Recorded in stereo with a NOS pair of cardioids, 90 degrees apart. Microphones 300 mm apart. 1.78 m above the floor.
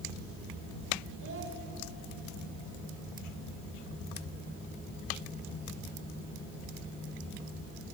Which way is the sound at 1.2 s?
45° right.